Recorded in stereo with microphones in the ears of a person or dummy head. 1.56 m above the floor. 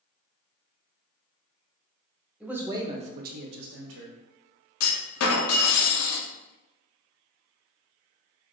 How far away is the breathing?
I don't hear breathing.